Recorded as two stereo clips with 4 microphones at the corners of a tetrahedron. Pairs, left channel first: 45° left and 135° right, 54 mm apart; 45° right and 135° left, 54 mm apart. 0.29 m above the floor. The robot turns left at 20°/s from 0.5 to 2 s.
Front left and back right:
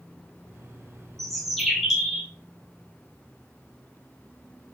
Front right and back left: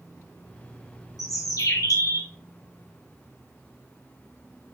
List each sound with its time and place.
1.2 s a bird: 40° right, 1.0 m; by 2.3 s 55° right, 1.0 m